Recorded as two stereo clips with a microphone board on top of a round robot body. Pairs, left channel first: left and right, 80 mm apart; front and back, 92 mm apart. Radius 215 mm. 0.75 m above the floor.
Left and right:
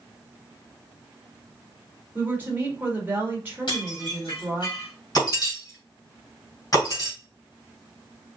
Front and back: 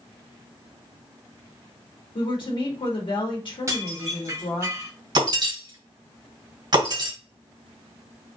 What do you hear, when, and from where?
2.1 s a woman speaking: 25° right, 1.8 m
3.7 s dishes clattering: 125° left, 1.9 m
5.2 s breaking glass: 135° left, 2.5 m